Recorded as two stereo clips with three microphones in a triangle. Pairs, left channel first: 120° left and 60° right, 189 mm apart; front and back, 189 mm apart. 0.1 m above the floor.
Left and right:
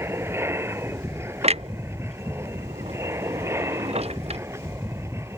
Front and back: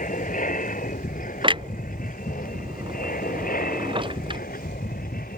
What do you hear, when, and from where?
0.0 s an aircraft: 15° left
1.4 s a clunk: 115° right